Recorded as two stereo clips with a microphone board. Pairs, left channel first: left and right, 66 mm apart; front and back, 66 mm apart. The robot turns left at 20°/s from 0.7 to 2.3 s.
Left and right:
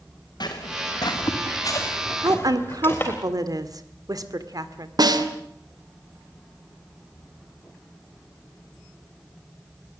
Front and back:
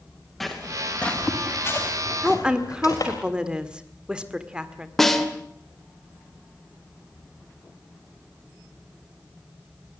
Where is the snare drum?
85° right, 2.5 m.